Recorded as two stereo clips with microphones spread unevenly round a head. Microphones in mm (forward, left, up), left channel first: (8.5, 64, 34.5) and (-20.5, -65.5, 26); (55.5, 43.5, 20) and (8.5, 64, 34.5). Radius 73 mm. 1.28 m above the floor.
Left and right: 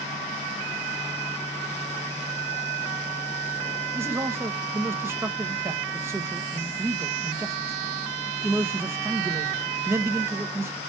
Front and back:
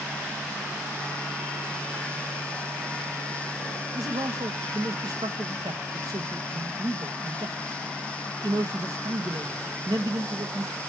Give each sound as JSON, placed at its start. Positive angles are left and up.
{"t": 3.9, "sound": "a man speaking", "azimuth_deg": -175, "distance_m": 0.9}